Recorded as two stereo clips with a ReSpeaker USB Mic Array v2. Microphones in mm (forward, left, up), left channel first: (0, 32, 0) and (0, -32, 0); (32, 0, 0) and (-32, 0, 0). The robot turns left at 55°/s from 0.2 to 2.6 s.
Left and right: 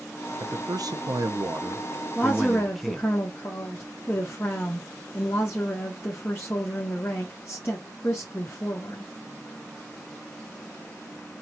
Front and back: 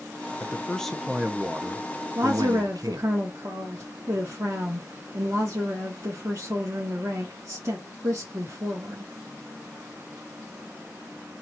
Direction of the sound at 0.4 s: 60° right.